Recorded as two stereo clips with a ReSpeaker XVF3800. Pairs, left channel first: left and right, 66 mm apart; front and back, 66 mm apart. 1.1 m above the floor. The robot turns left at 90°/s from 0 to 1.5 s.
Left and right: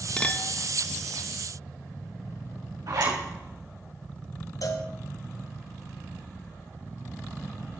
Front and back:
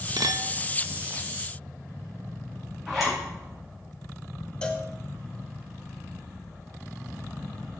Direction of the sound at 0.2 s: 165° left.